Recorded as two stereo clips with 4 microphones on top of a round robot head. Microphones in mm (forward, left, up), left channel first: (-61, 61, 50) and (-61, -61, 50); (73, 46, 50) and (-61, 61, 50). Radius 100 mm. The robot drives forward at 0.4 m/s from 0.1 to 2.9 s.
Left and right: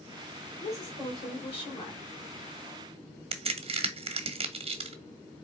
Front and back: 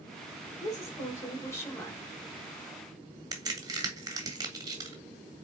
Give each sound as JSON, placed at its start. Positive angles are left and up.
{"t": 0.6, "sound": "a woman speaking", "azimuth_deg": 50, "distance_m": 2.5}
{"t": 3.3, "sound": "a crack", "azimuth_deg": -125, "distance_m": 0.9}